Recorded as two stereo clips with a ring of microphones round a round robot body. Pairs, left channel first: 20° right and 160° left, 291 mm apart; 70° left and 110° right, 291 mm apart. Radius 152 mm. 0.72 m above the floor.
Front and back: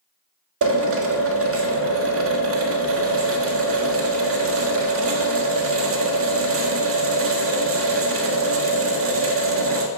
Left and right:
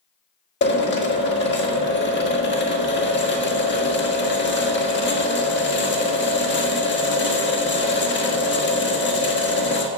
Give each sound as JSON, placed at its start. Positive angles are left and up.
{"t": 0.6, "sound": "a drill", "azimuth_deg": 120, "distance_m": 1.8}